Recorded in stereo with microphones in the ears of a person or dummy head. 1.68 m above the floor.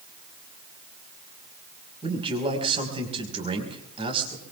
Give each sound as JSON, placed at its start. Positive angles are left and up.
{"t": 2.0, "sound": "a man speaking", "side_deg": -30, "distance_m": 5.0}